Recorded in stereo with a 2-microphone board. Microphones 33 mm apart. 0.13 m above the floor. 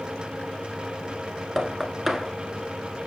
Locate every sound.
1.6 s knocking: 5° right (ahead or behind), 1.1 m